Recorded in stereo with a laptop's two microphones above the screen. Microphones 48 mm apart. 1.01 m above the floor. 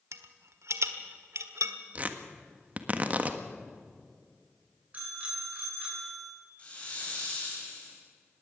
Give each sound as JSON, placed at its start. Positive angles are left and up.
{"t": 0.1, "sound": "a rattle", "side_deg": -75, "distance_m": 1.4}
{"t": 1.9, "sound": "tearing paper", "side_deg": -35, "distance_m": 1.5}
{"t": 4.9, "sound": "a bicycle bell", "side_deg": -30, "distance_m": 9.0}
{"t": 6.6, "sound": "a hiss", "side_deg": 25, "distance_m": 6.0}